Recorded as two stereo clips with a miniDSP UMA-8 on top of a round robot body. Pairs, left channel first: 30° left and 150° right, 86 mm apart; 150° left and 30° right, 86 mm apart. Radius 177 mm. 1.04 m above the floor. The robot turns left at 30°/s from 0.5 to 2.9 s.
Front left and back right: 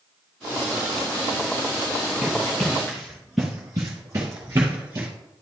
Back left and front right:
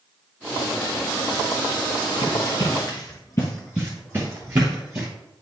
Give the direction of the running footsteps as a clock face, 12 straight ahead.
8 o'clock.